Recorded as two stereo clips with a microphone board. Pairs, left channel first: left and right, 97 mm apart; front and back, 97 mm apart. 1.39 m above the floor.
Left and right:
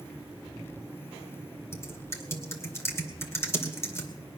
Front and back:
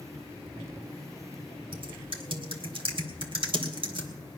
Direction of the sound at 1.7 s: 155° left.